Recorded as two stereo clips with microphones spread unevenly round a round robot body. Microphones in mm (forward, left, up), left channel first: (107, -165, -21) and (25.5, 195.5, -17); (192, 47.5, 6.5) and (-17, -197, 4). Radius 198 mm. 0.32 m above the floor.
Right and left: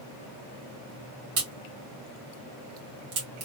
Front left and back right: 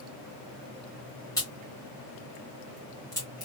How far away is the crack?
About 1.9 m.